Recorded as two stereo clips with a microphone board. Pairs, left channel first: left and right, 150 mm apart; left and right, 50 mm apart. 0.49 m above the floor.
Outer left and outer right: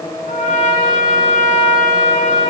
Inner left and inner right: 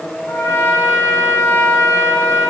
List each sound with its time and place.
0.3 s a trumpet: 65° left (ahead or behind), 1.9 m